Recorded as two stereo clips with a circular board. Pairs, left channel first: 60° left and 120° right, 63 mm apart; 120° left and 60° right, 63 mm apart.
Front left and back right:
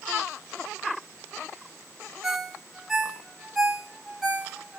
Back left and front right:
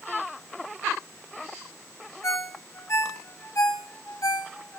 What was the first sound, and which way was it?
A ringtone, 155° left.